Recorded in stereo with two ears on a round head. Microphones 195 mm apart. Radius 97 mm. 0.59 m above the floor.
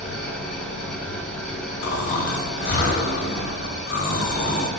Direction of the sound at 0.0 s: 5° left (ahead or behind).